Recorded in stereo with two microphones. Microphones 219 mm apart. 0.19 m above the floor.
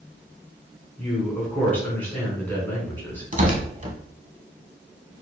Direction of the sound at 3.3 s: 35° right (ahead or behind).